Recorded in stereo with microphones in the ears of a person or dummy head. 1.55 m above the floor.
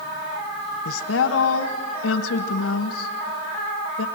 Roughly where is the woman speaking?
Left.